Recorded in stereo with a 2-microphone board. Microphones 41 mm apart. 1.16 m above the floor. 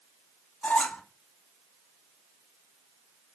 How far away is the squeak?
About 0.5 m.